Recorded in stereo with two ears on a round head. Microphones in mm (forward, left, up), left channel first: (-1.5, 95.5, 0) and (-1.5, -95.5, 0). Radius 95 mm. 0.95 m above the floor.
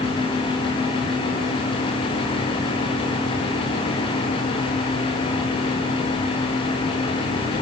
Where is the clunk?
No clunk in this recording.